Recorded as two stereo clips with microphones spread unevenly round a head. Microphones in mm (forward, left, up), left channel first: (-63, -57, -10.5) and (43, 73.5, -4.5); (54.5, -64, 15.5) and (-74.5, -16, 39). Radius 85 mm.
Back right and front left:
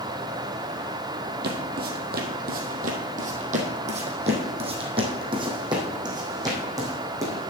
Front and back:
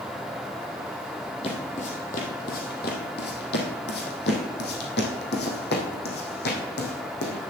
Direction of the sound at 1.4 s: 40° left.